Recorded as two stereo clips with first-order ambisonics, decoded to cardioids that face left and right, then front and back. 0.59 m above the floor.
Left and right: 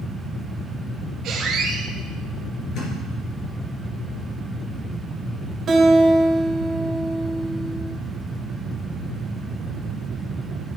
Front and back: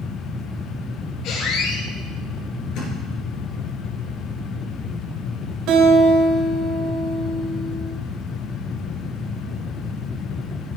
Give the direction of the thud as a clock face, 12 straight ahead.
11 o'clock.